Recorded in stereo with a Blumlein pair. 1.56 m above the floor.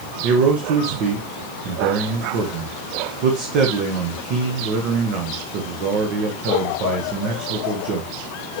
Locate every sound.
0.2 s a man speaking: 40° right, 1.5 m